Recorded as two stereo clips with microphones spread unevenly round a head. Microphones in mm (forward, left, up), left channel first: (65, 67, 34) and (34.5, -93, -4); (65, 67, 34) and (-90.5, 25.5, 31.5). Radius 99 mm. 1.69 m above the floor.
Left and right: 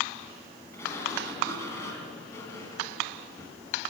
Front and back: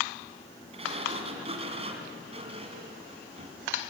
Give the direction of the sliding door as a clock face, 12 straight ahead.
7 o'clock.